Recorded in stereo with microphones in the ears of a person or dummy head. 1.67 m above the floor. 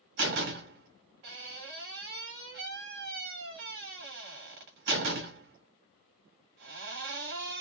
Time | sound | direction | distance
0.2 | a door slam | 50° right (ahead or behind) | 1.9 m